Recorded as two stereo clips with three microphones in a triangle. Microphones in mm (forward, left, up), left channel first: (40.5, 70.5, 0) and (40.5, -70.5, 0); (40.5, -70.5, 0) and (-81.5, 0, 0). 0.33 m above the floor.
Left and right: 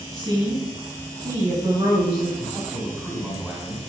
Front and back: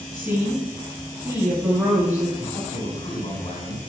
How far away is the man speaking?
About 2.5 m.